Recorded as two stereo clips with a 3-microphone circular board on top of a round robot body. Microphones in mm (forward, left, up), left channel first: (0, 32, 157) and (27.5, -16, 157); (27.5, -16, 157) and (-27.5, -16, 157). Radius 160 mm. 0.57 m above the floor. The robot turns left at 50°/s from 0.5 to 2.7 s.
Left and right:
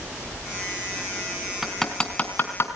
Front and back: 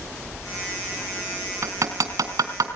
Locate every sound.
1.6 s hammering: 145° right, 2.5 m; by 2.7 s 160° left, 2.5 m